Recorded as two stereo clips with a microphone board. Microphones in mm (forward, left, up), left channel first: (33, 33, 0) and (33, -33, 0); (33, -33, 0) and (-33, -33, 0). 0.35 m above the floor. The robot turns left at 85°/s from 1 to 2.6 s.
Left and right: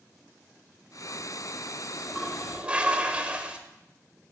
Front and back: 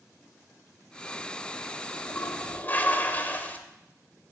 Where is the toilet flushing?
20° left, 1.4 m; by 3.6 s 35° right, 1.4 m.